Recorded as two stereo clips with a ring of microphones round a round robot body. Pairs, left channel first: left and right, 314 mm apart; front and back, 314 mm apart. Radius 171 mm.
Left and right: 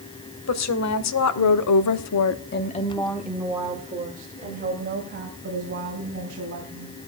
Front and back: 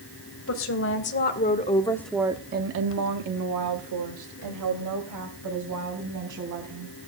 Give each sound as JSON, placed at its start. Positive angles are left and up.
{"t": 0.5, "sound": "a woman speaking", "azimuth_deg": 55, "distance_m": 2.5}